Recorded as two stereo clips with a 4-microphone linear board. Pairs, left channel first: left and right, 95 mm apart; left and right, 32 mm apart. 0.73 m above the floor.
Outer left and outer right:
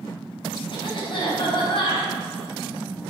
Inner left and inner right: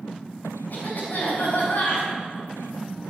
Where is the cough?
60° left (ahead or behind), 5 m.